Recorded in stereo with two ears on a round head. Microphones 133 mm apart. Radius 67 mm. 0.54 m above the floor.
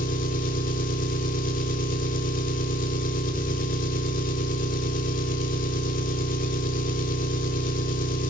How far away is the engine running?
About 1.3 m.